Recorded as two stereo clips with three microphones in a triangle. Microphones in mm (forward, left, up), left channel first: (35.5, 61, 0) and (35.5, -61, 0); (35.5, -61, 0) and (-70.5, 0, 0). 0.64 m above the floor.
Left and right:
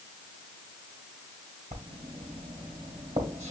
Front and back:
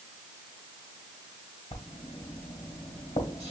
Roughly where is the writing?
Ahead right.